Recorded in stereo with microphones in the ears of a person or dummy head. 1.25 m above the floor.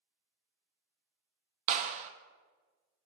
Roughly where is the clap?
Right.